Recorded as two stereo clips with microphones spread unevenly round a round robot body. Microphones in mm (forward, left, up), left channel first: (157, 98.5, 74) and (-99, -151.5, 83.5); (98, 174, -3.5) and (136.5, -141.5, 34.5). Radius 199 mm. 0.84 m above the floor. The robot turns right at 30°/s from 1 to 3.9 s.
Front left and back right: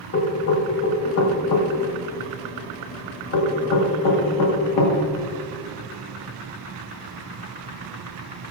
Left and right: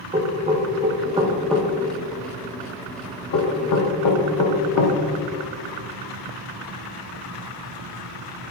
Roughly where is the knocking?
Ahead.